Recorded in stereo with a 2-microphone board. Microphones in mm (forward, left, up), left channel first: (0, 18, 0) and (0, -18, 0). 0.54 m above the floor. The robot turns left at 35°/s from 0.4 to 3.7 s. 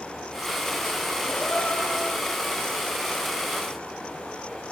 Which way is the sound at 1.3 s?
60° left.